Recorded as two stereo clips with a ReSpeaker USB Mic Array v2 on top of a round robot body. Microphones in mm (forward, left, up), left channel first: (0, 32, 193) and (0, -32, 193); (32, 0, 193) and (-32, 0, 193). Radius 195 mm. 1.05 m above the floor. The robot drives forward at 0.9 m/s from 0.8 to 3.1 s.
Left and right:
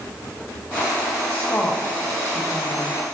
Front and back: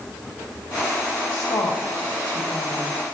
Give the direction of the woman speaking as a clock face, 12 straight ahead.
11 o'clock.